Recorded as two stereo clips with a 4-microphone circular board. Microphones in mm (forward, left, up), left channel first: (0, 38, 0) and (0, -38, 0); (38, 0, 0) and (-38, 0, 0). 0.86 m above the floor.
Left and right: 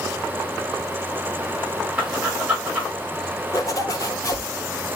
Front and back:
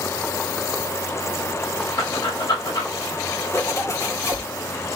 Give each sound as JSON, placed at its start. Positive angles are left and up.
{"t": 2.0, "sound": "breathing", "azimuth_deg": -15, "distance_m": 4.5}
{"t": 3.5, "sound": "a zipper", "azimuth_deg": 50, "distance_m": 3.0}